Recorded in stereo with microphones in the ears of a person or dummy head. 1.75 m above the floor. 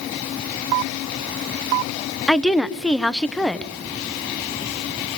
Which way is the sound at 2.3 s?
5° left (ahead or behind).